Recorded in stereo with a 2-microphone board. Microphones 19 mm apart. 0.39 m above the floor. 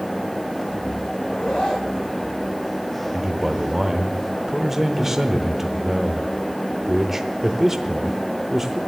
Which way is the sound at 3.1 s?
20° right (ahead or behind).